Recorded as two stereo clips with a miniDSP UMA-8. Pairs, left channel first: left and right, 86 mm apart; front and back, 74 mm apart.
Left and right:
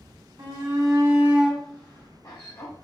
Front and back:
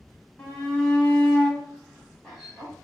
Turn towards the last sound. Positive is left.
turn(degrees=90)